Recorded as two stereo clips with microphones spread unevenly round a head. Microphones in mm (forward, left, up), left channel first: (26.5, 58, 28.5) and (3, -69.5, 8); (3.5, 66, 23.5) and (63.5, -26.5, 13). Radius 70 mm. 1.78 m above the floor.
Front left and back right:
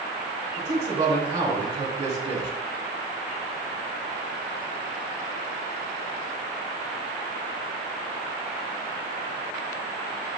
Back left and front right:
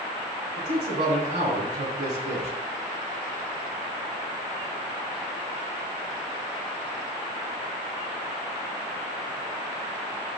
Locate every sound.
0.6 s a man speaking: 45° right, 3 m